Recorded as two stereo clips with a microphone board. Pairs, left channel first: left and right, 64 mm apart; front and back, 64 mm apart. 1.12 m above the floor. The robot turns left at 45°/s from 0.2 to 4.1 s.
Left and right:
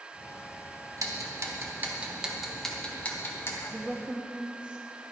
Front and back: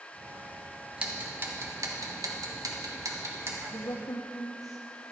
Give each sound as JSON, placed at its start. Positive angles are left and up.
{"t": 1.0, "sound": "ticking", "azimuth_deg": -110, "distance_m": 1.2}
{"t": 3.7, "sound": "a woman speaking", "azimuth_deg": 0, "distance_m": 0.6}